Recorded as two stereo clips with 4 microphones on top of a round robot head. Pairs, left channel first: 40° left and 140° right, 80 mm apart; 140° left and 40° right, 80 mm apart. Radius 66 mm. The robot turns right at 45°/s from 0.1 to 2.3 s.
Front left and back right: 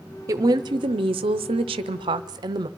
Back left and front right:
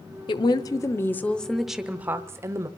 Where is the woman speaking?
165° left, 0.6 m; by 2.7 s 100° right, 0.6 m.